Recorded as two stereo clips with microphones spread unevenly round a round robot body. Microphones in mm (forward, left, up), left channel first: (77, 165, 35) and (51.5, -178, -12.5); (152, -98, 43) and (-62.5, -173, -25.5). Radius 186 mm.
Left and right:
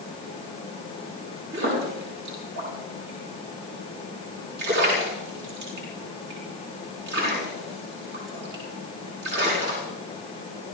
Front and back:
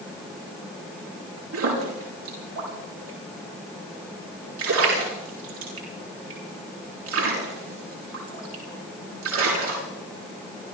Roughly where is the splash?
Behind right.